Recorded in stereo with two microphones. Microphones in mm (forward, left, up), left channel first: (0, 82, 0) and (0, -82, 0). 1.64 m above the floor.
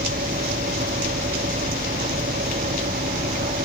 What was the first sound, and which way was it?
An engine running, 80° right.